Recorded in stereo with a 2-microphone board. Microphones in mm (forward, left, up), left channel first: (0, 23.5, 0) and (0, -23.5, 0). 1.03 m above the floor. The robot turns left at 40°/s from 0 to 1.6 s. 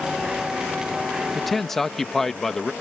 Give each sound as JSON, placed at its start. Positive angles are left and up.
{"t": 1.4, "sound": "a man speaking", "side_deg": 0}